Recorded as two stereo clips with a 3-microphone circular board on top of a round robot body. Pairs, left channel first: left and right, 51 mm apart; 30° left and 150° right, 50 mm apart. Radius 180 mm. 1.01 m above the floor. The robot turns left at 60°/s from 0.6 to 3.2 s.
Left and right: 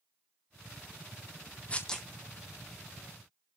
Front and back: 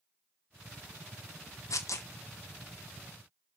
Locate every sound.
1.7 s tearing paper: 25° left, 2 m; by 2.1 s 5° left, 2 m